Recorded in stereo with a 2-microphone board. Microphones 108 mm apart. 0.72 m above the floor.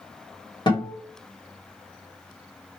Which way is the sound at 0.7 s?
45° left (ahead or behind).